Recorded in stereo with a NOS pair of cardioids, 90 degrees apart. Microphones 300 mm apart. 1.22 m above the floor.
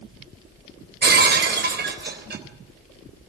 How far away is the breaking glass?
About 3.5 m.